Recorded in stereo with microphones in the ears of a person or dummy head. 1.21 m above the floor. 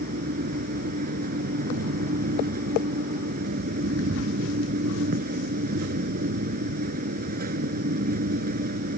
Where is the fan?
55° right (ahead or behind).